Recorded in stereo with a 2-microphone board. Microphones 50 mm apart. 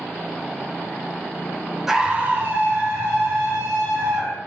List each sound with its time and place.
1.9 s a scream: 5° right (ahead or behind), 0.6 m; by 4.4 s 60° right (ahead or behind), 2.5 m